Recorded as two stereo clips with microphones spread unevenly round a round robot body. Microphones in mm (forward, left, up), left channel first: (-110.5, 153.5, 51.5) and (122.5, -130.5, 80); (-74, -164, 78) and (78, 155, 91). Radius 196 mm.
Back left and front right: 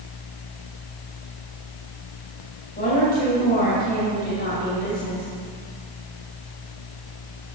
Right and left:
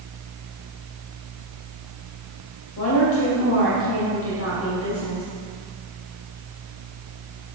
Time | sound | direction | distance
2.8 | a woman speaking | 165° right | 2.5 m